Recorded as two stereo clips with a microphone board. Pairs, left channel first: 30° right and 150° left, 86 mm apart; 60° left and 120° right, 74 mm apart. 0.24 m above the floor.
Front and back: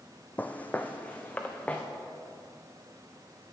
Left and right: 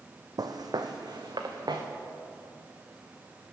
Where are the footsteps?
100° right, 0.7 m; by 1.8 s 105° right, 1.4 m.